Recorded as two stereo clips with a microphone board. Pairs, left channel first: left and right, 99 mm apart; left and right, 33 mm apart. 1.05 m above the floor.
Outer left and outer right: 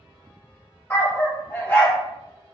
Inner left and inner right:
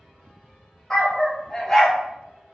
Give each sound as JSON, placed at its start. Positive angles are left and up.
{"t": 0.9, "sound": "a dog barking", "side_deg": 15, "distance_m": 1.1}